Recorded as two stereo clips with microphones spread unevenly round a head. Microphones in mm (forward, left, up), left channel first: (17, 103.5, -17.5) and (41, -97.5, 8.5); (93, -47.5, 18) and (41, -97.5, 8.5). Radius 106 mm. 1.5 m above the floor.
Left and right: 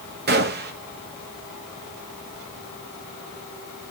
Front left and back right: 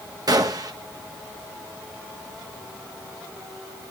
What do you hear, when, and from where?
0.3 s a gunshot: 110° right, 1.1 m